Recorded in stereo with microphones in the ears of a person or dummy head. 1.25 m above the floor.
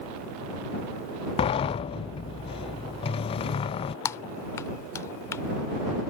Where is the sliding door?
20° left (ahead or behind).